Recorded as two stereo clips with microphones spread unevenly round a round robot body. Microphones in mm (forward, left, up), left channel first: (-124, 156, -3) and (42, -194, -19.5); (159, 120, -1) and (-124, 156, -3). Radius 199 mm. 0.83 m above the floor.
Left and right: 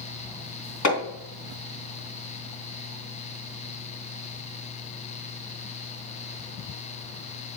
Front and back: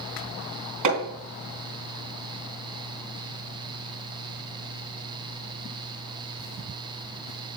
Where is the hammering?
165° left, 3.5 m.